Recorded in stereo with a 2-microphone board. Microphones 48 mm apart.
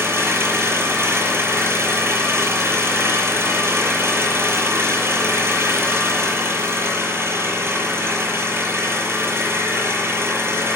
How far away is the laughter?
No laughter in this recording.